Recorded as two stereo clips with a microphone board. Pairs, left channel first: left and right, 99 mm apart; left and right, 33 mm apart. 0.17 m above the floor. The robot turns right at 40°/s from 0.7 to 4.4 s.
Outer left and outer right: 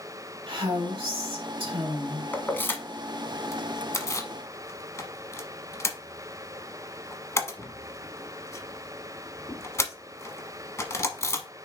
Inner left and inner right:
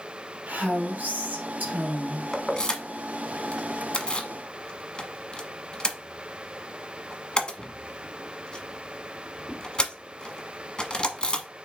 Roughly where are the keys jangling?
Centre.